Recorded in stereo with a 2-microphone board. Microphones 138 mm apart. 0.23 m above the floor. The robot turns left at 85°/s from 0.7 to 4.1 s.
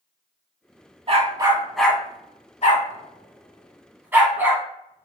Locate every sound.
1.1 s a dog barking: 45° right (ahead or behind), 0.7 m; by 5.0 s 15° right (ahead or behind), 0.7 m